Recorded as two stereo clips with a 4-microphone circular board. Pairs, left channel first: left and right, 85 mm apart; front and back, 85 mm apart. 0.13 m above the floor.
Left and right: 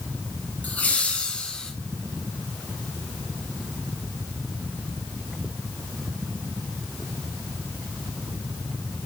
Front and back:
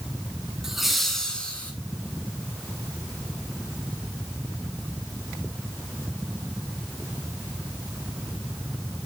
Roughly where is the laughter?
Left.